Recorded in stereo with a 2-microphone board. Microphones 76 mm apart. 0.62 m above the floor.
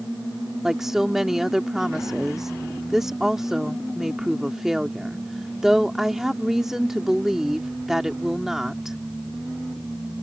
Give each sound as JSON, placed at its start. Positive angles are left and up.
{"t": 0.6, "sound": "a woman speaking", "side_deg": -5}